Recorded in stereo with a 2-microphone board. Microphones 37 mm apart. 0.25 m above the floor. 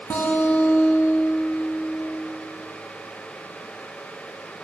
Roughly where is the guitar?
Left.